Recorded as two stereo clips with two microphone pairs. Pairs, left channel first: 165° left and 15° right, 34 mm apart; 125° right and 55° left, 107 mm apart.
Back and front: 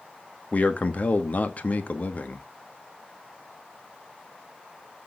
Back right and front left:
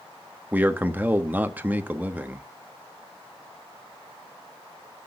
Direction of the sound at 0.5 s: 130° left.